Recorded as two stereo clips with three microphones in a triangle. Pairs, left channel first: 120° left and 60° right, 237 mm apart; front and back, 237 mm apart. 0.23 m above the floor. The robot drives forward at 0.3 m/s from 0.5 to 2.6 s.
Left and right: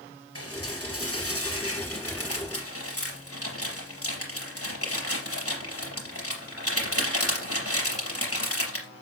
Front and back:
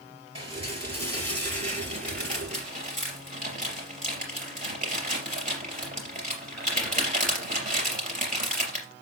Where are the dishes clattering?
115° left, 3.5 m; by 8.9 s 125° left, 3.5 m.